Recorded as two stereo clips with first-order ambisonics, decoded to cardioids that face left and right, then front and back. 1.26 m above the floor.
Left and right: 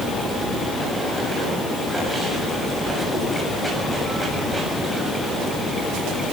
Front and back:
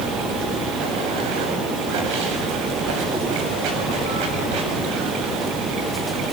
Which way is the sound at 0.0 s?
175° right.